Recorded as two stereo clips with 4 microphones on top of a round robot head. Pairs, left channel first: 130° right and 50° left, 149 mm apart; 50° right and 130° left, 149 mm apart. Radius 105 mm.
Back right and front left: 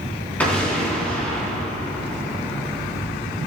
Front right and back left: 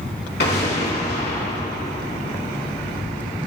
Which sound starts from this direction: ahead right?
An explosion, at 0.4 s.